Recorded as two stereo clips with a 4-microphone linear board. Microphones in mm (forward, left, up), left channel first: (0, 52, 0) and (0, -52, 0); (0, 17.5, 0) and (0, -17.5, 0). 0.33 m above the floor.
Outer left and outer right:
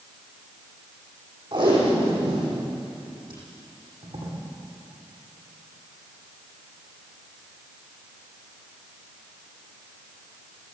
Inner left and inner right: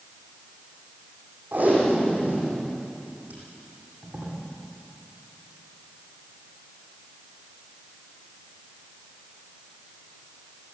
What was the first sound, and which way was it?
Tape being pulled, 45° right (ahead or behind).